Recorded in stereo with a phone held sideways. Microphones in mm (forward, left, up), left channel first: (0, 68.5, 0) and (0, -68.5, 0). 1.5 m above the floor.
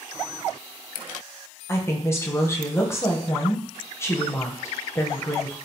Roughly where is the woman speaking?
Centre.